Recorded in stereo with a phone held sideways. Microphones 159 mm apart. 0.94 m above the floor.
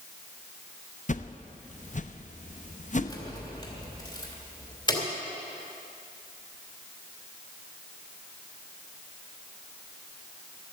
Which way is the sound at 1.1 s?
50° left (ahead or behind).